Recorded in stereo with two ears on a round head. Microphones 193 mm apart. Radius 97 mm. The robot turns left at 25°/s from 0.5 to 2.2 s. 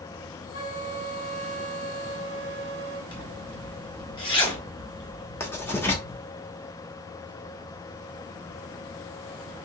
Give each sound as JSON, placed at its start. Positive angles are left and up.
{"t": 0.5, "sound": "a flute", "azimuth_deg": 55, "distance_m": 1.1}
{"t": 3.1, "sound": "a zipper", "side_deg": 25, "distance_m": 1.2}
{"t": 5.4, "sound": "writing", "side_deg": 10, "distance_m": 0.9}